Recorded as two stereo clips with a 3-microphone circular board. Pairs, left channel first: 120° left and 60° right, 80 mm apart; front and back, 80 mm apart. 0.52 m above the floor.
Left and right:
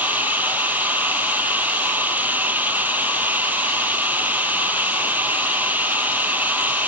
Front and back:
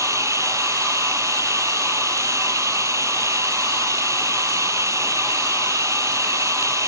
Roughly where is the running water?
Behind right.